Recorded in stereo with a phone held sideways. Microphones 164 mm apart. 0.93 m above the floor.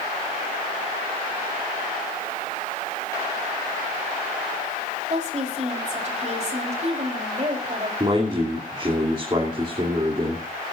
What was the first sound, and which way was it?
A woman speaking, 50° right (ahead or behind).